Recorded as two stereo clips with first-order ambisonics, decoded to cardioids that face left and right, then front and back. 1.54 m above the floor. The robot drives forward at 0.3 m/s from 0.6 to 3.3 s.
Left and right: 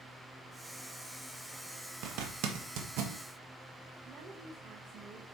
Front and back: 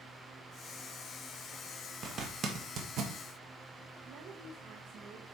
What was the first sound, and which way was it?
A zipper, 115° right.